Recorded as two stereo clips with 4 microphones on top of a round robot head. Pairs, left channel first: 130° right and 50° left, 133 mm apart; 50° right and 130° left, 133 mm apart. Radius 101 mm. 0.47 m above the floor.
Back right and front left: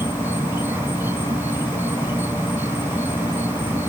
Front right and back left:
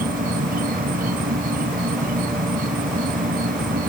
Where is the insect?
125° left.